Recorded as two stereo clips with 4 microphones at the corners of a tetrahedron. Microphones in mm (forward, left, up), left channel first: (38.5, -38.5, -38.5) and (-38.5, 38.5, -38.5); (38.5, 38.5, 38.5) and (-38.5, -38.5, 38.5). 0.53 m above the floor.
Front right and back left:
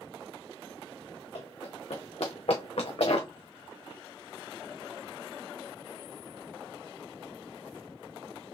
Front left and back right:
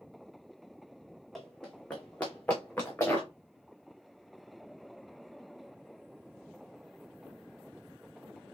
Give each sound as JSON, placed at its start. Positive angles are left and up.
{"t": 1.4, "sound": "running footsteps", "azimuth_deg": -40, "distance_m": 1.7}